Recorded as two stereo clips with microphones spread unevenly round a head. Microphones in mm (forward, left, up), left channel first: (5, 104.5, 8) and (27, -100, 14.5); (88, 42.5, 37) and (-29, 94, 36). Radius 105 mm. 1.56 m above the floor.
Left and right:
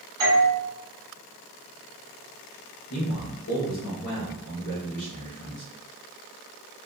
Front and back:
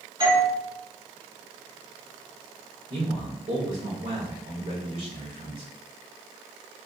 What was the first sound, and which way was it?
A doorbell, 150° right.